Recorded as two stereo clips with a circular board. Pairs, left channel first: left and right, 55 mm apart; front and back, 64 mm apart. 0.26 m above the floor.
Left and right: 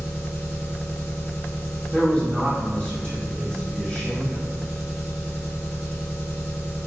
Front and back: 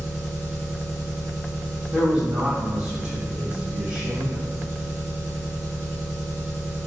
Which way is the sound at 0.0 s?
135° right.